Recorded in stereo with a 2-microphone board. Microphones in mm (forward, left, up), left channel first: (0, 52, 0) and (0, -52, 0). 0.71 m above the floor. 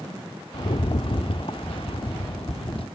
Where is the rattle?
60° left (ahead or behind), 0.8 m.